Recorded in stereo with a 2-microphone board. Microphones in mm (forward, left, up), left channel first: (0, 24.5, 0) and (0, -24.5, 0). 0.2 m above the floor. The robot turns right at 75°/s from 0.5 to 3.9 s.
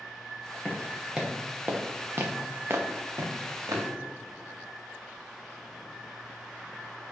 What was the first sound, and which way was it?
Footsteps, 10° left (ahead or behind).